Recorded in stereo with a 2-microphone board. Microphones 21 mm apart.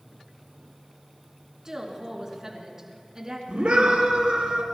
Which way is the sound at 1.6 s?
30° right (ahead or behind).